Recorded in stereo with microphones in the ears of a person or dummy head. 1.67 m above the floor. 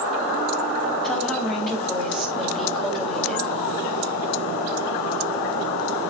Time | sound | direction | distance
1.0 | a woman speaking | 5° left (ahead or behind) | 3.5 m